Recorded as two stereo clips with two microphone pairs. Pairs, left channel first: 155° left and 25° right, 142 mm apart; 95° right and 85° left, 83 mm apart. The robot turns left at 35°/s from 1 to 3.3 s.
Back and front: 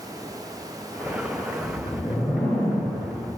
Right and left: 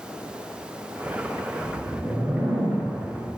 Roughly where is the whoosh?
Behind left.